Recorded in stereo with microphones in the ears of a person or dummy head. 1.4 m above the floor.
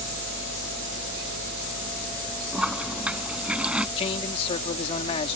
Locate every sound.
2.5 s a toilet flushing: 5° right (ahead or behind)
4.0 s a man speaking: 35° left (ahead or behind)